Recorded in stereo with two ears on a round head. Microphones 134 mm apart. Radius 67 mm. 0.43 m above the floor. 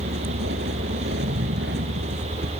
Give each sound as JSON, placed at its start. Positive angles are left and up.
{"t": 0.0, "sound": "a vehicle", "side_deg": -85}